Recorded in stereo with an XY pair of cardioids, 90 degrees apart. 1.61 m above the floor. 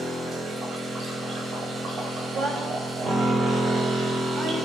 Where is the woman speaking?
55° right, 5 m.